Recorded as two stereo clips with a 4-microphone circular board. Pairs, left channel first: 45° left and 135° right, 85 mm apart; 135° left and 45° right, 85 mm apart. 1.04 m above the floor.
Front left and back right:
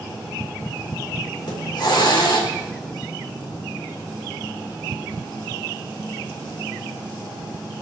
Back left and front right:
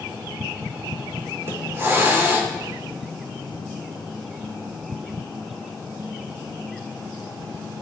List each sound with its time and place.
1.4 s a hiss: 15° left, 3.5 m